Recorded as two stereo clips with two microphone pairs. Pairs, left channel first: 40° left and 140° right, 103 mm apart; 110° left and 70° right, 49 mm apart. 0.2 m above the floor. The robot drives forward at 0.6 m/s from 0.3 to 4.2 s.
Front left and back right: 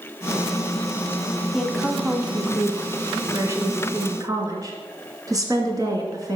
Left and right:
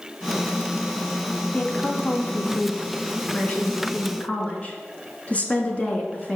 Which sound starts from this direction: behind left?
A woman speaking, at 1.5 s.